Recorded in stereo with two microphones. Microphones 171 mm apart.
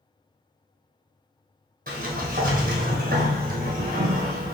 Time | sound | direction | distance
1.9 | a sliding door | 55° right (ahead or behind) | 1.1 m